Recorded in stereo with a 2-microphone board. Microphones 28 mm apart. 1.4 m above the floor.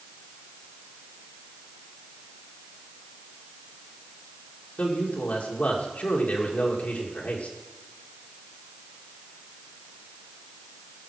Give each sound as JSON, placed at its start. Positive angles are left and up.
{"t": 4.8, "sound": "a man speaking", "side_deg": 65, "distance_m": 2.0}